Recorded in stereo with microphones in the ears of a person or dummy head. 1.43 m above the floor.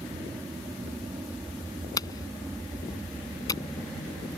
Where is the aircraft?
10° right (ahead or behind); by 4.4 s centre (ahead or behind).